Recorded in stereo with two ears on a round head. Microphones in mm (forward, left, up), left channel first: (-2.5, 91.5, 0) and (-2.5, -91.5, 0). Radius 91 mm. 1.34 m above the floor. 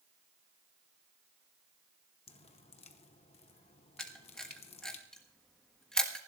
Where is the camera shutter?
5° left (ahead or behind), 1.5 m.